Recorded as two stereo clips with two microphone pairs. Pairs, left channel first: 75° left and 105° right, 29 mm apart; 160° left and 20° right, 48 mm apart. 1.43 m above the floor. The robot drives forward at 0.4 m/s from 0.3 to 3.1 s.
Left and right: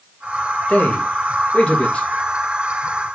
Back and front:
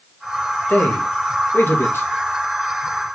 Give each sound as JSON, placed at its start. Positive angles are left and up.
{"t": 0.7, "sound": "a man speaking", "azimuth_deg": 115, "distance_m": 2.5}